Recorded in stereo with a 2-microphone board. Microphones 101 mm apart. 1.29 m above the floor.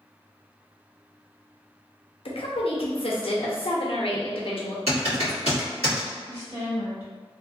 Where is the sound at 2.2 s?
65° left (ahead or behind), 0.7 m.